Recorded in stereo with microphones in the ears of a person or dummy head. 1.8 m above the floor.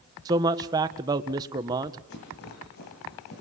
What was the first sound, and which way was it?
A man speaking, 20° right (ahead or behind).